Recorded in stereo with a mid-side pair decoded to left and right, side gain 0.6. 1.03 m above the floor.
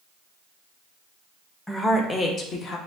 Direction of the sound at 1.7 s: 5° left.